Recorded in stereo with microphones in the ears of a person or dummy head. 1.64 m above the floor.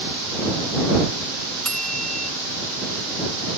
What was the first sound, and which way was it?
A bell, 5° left (ahead or behind).